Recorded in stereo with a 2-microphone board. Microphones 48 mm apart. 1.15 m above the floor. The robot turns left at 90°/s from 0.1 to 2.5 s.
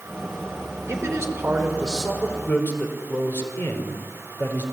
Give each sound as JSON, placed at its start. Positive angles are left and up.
{"t": 0.9, "sound": "a man speaking", "azimuth_deg": -75, "distance_m": 5.0}